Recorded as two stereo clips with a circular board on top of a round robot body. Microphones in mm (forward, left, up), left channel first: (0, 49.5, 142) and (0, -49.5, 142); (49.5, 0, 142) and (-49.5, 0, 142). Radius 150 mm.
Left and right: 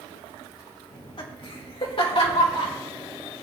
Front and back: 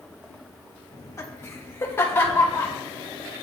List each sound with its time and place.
0.9 s laughter: 55° left, 2 m; by 2.7 s 70° left, 3.5 m